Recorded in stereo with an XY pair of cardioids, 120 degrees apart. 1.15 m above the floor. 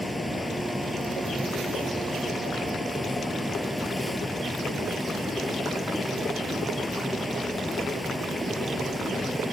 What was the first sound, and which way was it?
A fan, 5° left.